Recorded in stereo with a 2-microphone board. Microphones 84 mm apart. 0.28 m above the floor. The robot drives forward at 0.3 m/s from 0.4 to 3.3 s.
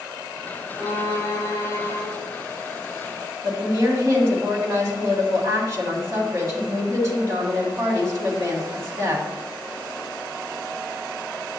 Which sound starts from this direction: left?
A violin, at 0.8 s.